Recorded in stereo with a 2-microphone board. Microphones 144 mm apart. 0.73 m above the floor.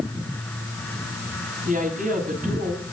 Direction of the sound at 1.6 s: 60° right (ahead or behind).